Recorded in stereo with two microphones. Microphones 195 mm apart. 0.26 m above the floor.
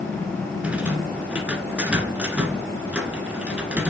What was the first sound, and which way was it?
A rattle, 5° right (ahead or behind).